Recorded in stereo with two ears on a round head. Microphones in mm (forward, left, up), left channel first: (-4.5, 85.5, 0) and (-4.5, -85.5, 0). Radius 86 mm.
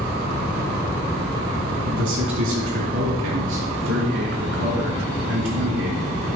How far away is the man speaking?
About 3 m.